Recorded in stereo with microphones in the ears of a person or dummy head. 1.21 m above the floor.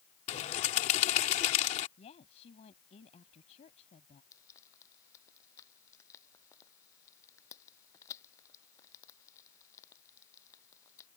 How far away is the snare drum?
I don't hear a snare drum.